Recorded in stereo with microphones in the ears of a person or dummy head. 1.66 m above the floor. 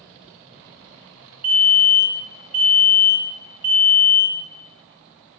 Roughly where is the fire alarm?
Centre.